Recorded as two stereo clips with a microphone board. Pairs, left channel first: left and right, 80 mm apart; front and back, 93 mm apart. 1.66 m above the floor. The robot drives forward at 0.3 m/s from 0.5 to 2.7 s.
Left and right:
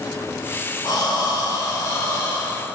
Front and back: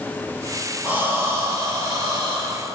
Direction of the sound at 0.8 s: 110° left.